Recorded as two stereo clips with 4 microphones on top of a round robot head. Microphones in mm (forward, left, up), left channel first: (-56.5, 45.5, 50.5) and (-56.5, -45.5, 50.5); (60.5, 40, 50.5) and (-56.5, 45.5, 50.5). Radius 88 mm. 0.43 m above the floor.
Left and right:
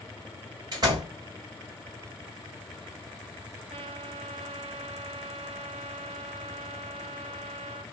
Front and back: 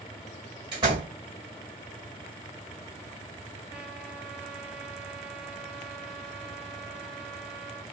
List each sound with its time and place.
0.7 s a door slam: 130° right, 2.5 m
3.7 s a trumpet: 95° right, 0.7 m